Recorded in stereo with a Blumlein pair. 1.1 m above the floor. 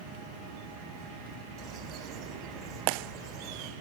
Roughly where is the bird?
Ahead right.